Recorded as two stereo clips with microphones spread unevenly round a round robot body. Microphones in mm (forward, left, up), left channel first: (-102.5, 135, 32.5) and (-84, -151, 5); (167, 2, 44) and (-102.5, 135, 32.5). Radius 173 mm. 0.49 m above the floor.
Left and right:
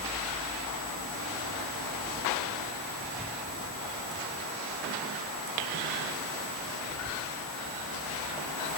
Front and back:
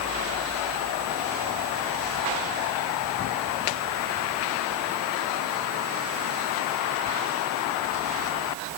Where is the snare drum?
No snare drum in this recording.